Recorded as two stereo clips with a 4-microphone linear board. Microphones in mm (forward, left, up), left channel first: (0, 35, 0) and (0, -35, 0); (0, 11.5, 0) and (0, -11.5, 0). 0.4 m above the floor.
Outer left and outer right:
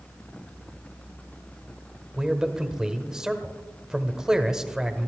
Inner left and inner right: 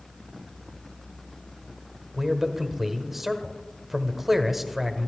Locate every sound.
2.2 s a man speaking: 10° right (ahead or behind), 1.2 m